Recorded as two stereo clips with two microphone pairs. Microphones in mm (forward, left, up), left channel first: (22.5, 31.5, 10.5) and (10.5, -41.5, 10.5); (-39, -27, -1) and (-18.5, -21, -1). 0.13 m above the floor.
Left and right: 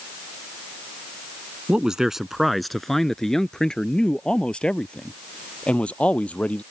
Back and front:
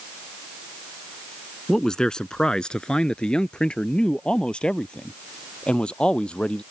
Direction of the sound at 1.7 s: 160° right.